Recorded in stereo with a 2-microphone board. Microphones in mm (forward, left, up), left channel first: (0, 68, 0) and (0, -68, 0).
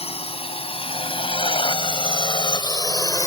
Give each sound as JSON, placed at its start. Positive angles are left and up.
{"t": 0.0, "sound": "a drone", "side_deg": 50}